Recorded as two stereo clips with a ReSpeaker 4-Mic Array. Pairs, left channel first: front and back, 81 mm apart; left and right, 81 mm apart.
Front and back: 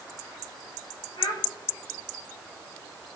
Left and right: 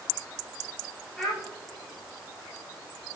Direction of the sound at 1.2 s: Straight ahead.